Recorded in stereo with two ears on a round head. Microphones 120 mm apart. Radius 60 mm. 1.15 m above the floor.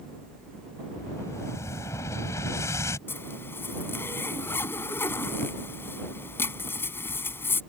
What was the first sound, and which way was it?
An explosion, 20° left (ahead or behind).